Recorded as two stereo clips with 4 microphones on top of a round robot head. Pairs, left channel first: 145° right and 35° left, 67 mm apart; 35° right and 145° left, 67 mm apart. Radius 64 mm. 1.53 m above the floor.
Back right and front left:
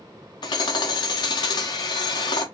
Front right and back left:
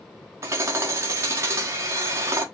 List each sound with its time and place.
0.4 s hammering: 165° right, 1.1 m